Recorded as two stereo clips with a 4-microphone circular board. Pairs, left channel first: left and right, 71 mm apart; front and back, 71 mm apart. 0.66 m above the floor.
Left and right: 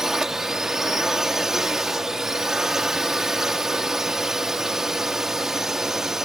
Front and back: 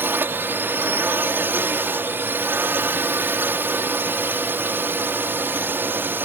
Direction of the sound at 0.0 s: 165° right.